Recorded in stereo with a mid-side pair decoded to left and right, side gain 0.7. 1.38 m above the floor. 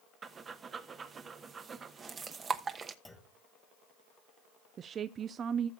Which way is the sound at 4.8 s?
40° right.